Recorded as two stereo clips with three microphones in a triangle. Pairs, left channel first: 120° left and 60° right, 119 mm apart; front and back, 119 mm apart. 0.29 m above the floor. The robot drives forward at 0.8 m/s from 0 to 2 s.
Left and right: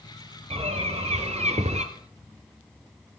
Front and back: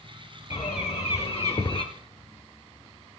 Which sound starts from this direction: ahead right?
A bird, at 0.5 s.